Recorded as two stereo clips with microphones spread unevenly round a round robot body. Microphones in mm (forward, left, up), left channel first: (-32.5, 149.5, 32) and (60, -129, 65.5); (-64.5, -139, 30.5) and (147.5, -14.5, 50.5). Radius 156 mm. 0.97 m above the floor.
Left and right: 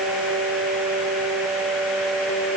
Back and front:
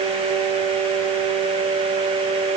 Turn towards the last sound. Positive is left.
No sound to turn to.